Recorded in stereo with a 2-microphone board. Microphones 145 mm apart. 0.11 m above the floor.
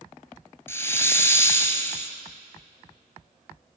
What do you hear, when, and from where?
0.7 s a hiss: 15° left (ahead or behind), 1.1 m